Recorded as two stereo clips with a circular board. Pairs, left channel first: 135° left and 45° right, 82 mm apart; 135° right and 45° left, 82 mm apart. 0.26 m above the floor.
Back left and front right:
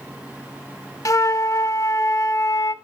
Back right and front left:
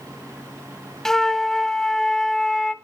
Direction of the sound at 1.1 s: 145° left.